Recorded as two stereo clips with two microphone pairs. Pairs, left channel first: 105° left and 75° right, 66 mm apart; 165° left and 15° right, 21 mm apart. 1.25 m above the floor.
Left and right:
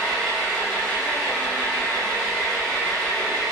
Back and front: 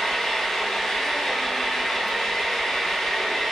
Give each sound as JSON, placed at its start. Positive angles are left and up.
{"t": 0.0, "sound": "an engine running", "azimuth_deg": 180, "distance_m": 0.8}